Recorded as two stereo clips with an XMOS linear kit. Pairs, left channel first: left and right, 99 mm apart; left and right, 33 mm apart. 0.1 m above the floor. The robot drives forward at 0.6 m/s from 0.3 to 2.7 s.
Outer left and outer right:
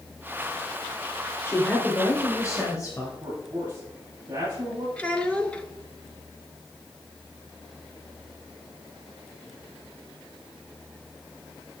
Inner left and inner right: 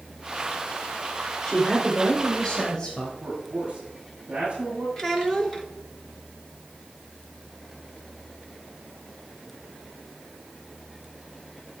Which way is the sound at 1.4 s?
25° left (ahead or behind).